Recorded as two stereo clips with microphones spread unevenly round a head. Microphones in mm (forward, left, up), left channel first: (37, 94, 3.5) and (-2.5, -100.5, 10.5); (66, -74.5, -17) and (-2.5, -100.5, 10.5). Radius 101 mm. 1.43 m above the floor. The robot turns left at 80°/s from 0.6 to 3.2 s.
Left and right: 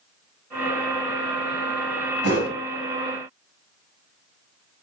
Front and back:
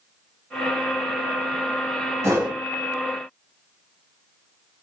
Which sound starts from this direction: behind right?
A whoosh, at 2.2 s.